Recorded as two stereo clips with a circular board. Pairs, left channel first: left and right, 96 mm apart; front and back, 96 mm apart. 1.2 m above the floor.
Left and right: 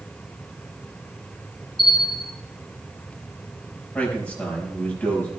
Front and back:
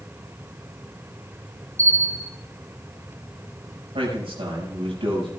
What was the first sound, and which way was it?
A bell, 125° left.